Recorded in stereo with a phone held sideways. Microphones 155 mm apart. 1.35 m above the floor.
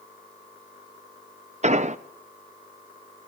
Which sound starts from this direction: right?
An explosion, at 1.6 s.